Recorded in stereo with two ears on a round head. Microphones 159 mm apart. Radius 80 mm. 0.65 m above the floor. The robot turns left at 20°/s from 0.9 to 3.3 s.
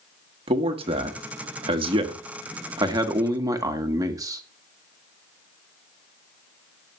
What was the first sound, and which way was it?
A man speaking, 90° right.